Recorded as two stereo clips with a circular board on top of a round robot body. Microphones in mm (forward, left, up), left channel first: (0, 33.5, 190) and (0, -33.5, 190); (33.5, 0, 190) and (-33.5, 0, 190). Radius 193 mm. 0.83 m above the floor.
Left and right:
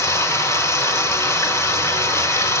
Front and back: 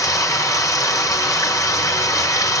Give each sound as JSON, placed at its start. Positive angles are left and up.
{"t": 0.0, "sound": "running water", "azimuth_deg": 40, "distance_m": 2.0}